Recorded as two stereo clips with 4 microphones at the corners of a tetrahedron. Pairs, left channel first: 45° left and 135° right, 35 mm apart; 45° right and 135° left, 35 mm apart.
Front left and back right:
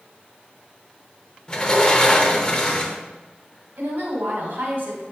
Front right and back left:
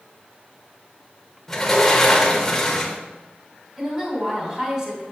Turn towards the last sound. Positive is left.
turn(degrees=-160)